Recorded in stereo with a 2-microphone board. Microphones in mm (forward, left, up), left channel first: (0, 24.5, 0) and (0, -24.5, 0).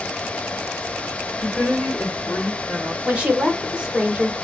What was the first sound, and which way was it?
A woman speaking, 5° left (ahead or behind).